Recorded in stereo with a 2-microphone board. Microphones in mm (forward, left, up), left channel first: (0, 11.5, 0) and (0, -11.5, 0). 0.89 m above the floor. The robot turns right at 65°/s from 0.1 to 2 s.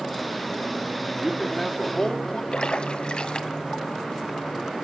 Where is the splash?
45° left (ahead or behind), 1.5 m.